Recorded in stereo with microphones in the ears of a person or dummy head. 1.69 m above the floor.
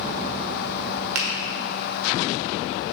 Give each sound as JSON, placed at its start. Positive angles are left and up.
{"t": 1.1, "sound": "a finger snap", "side_deg": -70, "distance_m": 1.4}